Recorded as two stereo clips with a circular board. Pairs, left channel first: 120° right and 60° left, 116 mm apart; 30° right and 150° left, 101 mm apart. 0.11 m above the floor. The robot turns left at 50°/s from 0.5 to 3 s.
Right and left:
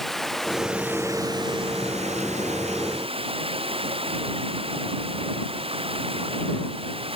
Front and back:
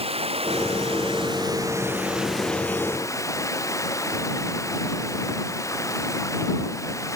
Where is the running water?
155° left; by 7.2 s 30° left.